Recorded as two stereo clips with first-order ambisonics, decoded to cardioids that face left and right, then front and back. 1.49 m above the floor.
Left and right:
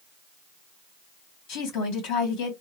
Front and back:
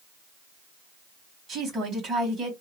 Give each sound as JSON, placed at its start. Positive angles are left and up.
{"t": 1.5, "sound": "a woman speaking", "azimuth_deg": 115, "distance_m": 1.8}